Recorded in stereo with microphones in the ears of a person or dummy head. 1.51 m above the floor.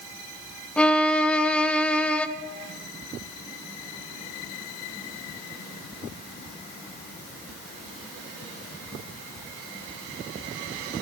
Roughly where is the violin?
Centre.